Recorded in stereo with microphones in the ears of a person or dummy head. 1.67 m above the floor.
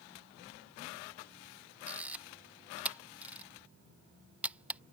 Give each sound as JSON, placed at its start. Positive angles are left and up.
{"t": 1.9, "sound": "a camera shutter", "side_deg": -10}